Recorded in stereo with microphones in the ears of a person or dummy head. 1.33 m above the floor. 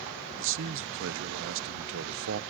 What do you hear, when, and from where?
0.4 s a man speaking: 65° right (ahead or behind), 0.7 m